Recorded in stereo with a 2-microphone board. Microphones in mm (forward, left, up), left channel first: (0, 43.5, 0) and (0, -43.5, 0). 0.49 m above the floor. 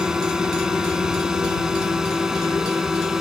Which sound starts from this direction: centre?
A drone, at 0.0 s.